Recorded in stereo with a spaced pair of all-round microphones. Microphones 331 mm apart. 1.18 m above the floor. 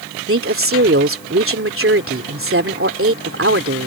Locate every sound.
0.3 s a woman speaking: 40° right (ahead or behind)